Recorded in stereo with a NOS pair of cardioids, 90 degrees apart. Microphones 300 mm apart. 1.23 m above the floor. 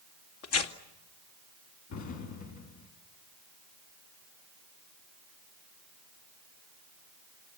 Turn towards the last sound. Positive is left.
turn(degrees=70)